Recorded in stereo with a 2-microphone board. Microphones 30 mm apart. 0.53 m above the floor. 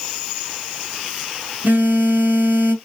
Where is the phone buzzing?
75° right (ahead or behind), 1.1 m.